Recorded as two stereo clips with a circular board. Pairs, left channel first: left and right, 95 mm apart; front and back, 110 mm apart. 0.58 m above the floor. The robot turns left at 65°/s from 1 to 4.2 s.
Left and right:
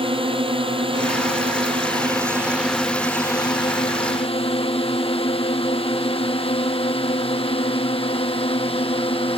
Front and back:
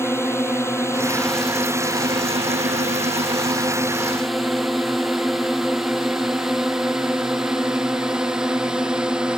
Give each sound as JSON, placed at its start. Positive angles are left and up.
{"t": 0.0, "sound": "a drone", "azimuth_deg": -70}